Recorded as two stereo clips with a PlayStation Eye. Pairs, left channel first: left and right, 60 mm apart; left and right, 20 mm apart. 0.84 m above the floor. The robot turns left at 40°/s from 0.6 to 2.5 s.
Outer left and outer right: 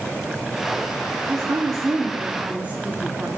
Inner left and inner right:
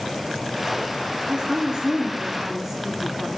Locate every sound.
1.3 s a woman speaking: 105° right, 1.8 m; by 3.3 s 155° right, 1.8 m